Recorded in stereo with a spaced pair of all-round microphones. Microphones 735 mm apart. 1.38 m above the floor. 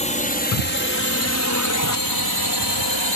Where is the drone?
10° left (ahead or behind); by 3.2 s 40° left (ahead or behind).